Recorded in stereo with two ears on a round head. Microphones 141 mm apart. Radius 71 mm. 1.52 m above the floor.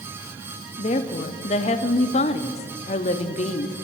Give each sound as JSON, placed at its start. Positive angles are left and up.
{"t": 0.8, "sound": "a woman speaking", "side_deg": 45, "distance_m": 0.6}